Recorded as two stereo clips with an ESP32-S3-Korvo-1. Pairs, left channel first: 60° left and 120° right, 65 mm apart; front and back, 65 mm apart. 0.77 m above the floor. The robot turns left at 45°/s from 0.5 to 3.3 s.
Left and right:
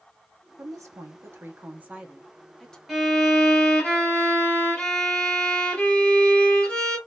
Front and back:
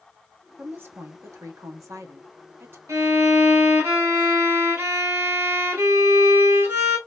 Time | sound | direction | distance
0.6 | a woman speaking | 120° right | 1.1 m
2.9 | a violin | 155° left | 2 m